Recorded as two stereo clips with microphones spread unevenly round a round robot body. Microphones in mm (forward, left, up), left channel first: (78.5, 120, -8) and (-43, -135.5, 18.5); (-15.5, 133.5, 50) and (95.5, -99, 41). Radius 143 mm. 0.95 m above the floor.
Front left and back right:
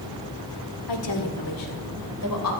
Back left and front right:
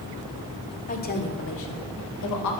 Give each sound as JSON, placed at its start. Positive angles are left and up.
{"t": 0.9, "sound": "a woman speaking", "azimuth_deg": 55, "distance_m": 2.5}